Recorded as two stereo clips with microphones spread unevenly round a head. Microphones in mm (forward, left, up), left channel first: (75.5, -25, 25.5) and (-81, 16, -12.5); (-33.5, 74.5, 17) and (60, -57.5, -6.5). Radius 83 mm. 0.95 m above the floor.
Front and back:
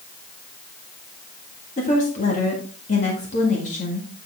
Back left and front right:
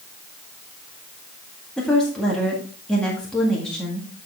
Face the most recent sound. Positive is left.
turn(degrees=35)